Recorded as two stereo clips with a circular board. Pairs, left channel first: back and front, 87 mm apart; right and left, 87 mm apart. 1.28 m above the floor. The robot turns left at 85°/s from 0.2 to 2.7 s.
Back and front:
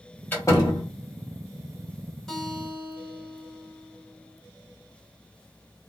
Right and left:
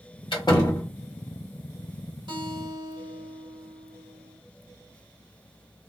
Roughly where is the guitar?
Left.